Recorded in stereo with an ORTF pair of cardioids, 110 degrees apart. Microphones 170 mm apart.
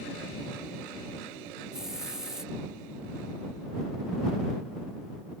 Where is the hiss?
5° right.